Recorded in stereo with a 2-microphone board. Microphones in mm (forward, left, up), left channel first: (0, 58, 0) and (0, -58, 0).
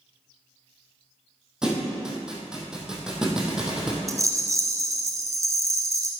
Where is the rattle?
30° right (ahead or behind), 1.0 m.